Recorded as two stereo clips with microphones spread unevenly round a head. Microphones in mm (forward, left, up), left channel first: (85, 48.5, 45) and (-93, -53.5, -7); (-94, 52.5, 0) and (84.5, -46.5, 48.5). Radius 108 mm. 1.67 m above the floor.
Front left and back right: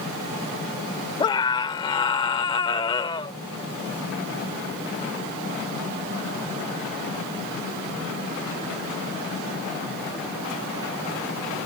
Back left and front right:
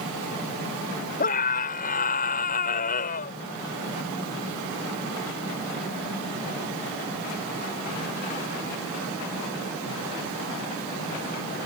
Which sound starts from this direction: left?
A scream, at 1.2 s.